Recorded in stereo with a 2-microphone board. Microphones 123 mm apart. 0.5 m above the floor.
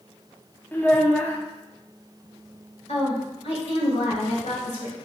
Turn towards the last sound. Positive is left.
turn(degrees=55)  # may be behind; listen again after turning